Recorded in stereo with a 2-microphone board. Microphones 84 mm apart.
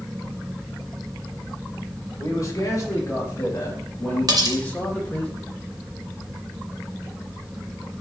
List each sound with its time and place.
2.2 s a man speaking: 40° left (ahead or behind), 4 m; by 5.3 s 15° left (ahead or behind), 3 m
4.3 s cutlery clinking: 50° right (ahead or behind), 1.5 m